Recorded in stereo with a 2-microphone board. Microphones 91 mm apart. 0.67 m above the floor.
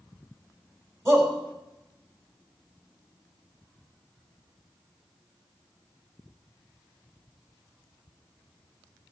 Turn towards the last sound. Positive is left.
turn(degrees=-35)  # may be behind; listen again after turning